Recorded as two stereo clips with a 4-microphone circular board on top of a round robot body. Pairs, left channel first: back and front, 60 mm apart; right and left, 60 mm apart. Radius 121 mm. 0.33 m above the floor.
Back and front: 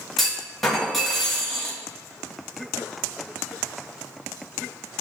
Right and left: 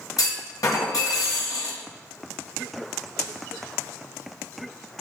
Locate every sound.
0.2 s a clunk: 95° right, 2.5 m